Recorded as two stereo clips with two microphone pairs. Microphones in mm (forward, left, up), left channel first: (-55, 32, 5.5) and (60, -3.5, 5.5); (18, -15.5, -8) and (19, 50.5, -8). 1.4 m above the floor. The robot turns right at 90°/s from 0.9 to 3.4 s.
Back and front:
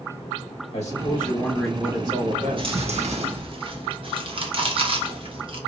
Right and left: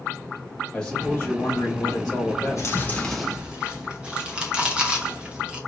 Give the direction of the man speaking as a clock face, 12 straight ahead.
6 o'clock.